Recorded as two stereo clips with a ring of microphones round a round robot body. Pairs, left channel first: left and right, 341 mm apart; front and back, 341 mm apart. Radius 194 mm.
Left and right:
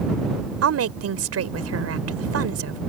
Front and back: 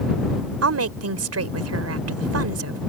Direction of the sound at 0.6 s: 135° right.